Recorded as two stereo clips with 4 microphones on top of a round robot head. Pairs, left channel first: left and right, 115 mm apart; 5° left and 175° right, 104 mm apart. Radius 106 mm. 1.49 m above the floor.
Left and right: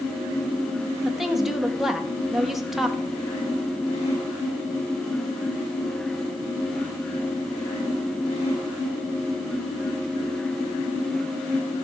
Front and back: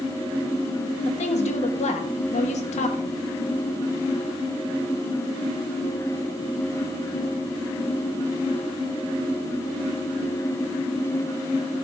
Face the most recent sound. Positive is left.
turn(degrees=-5)